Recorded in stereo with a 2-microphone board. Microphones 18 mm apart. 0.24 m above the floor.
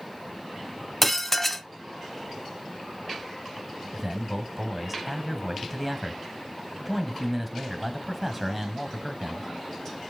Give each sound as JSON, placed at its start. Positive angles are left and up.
{"t": 1.0, "sound": "dishes clattering", "side_deg": 15, "distance_m": 1.2}
{"t": 3.9, "sound": "a man speaking", "side_deg": -5, "distance_m": 1.5}